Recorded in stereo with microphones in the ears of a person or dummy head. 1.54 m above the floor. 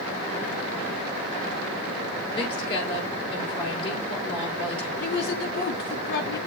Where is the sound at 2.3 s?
30° left (ahead or behind), 4.5 m.